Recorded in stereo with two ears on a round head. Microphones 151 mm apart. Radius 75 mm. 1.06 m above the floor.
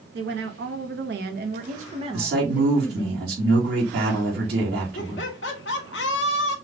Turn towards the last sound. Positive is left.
turn(degrees=75)  # may be behind; listen again after turning